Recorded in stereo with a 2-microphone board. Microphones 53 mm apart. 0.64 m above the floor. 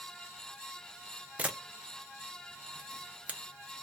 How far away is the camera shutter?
About 0.6 m.